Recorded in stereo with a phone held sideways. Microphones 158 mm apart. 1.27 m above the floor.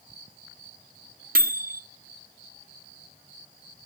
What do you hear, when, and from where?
1.4 s a microwave: 65° right (ahead or behind), 0.5 m